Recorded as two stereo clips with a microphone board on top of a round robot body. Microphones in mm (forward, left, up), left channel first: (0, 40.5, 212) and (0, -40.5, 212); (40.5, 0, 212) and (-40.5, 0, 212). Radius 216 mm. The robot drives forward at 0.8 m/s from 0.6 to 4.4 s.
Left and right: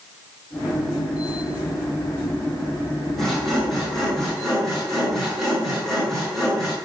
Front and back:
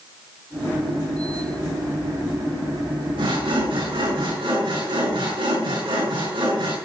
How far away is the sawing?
About 5.5 m.